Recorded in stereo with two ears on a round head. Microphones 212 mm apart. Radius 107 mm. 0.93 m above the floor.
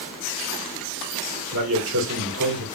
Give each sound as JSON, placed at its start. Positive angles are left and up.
{"t": 1.5, "sound": "a man speaking", "side_deg": -60, "distance_m": 1.7}